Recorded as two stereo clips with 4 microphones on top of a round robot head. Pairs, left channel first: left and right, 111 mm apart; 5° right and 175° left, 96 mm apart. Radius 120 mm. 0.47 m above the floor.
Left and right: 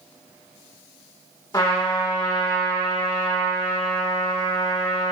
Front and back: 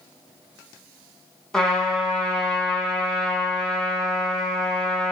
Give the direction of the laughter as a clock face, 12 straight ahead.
No laughter in this recording.